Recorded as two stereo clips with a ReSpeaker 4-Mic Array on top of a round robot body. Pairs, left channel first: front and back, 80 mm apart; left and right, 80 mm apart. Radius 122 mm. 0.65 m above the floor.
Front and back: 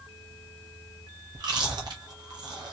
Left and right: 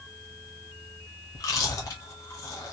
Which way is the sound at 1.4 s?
140° left.